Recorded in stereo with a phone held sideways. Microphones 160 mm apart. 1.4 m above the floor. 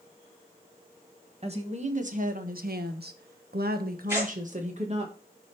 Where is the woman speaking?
40° right (ahead or behind), 1.5 m.